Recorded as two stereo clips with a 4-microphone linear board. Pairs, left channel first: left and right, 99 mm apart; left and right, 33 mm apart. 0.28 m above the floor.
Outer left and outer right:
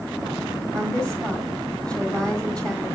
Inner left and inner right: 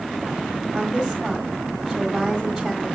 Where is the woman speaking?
10° left (ahead or behind), 1.4 m.